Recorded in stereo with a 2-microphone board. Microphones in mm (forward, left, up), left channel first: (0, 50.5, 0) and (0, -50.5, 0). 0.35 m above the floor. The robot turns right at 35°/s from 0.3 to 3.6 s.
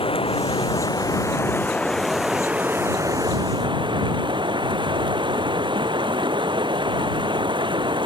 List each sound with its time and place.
0.0 s running water: 115° left; by 8.1 s 130° right